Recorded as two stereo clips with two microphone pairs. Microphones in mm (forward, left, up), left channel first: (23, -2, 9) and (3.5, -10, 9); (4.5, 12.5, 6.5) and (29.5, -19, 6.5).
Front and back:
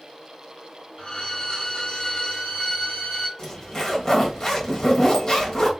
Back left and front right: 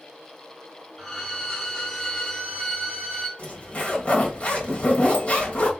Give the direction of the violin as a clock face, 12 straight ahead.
10 o'clock.